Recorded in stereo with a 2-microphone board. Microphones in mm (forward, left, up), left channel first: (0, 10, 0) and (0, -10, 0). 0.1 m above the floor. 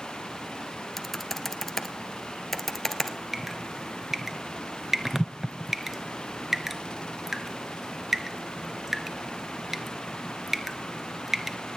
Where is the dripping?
20° right (ahead or behind), 0.9 m.